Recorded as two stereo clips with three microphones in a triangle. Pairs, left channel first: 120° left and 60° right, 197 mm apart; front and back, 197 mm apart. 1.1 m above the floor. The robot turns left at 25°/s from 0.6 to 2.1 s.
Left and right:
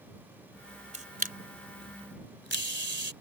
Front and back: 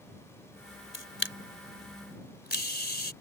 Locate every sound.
0.9 s a camera shutter: 5° right; by 3.1 s 35° right